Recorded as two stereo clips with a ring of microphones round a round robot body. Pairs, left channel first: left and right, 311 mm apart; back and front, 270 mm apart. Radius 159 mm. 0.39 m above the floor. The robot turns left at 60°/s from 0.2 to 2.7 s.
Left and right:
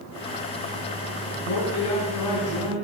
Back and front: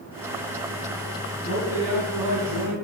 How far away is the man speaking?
About 3.5 m.